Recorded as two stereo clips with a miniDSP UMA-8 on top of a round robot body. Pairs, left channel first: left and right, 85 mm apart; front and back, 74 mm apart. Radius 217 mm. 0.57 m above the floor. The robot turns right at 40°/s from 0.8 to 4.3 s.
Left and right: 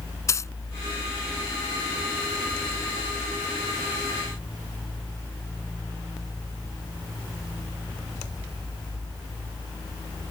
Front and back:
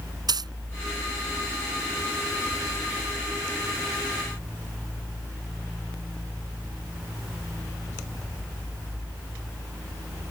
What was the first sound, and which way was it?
A dropped coin, 150° left.